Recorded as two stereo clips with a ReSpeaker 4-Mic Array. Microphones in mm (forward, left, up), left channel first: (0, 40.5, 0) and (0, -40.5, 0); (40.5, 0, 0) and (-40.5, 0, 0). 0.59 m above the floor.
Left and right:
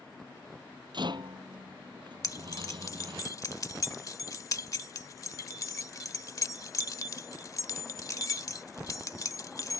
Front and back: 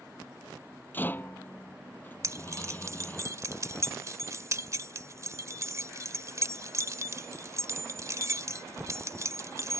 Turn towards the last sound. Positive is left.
turn(degrees=135)